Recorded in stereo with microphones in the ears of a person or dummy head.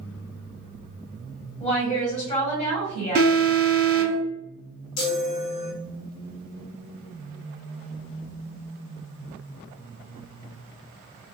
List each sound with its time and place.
1.6 s a woman speaking: 35° left (ahead or behind), 1.4 m
3.1 s an alarm: 45° right (ahead or behind), 1.7 m
5.0 s a chime: 80° left, 1.0 m